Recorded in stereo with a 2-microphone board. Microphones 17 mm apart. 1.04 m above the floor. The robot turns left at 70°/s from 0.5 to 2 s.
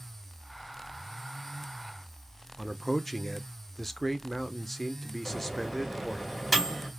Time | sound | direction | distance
2.6 | a man speaking | 10° left (ahead or behind) | 0.5 m
5.2 | a microwave | centre (ahead or behind) | 2.5 m